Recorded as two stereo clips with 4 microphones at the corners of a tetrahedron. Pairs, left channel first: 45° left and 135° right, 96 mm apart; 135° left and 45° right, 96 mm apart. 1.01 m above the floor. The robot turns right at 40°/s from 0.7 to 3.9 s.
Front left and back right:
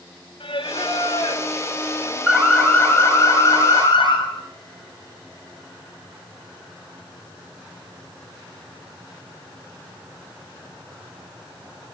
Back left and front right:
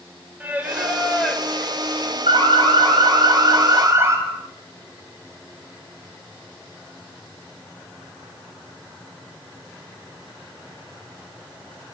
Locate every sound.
0.4 s singing: 30° left, 4 m; by 2.2 s 85° left, 4 m
2.3 s an alarm: 50° right, 7.5 m; by 4.2 s 15° left, 7.5 m